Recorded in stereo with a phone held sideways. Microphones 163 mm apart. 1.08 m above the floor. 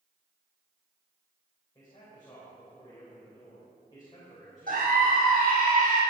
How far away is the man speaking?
About 5.5 m.